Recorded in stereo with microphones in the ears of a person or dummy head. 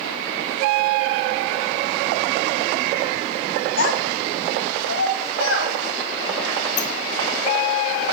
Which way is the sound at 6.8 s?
50° left (ahead or behind).